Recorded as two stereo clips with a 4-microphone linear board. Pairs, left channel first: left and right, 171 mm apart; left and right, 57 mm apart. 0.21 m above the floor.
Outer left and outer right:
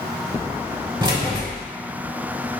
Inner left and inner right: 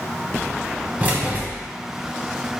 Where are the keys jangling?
25° right (ahead or behind), 0.8 m.